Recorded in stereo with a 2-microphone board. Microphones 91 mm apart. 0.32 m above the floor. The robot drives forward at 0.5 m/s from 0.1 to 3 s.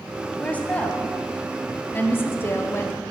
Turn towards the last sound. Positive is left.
turn(degrees=25)  # may be behind; listen again after turning